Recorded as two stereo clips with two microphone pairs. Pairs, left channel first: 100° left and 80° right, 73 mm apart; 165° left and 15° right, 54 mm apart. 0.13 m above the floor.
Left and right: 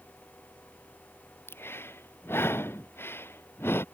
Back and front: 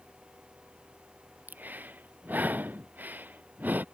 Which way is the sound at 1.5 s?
45° left.